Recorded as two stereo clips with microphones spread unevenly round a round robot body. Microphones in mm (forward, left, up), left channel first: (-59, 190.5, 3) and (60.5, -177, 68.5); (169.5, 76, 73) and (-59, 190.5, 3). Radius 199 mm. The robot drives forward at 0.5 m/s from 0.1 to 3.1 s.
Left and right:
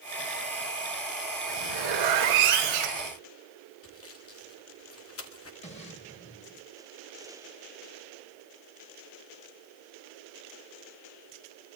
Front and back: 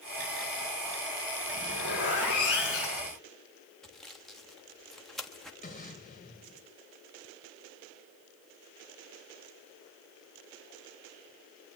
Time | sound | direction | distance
1.5 | a zipper | 80° right | 5 m
3.8 | sawing | 75° left | 1.5 m
5.6 | an explosion | 30° left | 2.5 m